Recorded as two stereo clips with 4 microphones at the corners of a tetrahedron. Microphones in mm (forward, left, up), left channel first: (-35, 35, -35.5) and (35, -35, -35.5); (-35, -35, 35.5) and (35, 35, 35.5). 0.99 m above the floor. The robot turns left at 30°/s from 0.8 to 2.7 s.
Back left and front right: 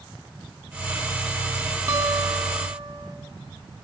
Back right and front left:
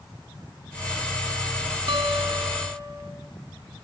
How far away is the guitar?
About 4 m.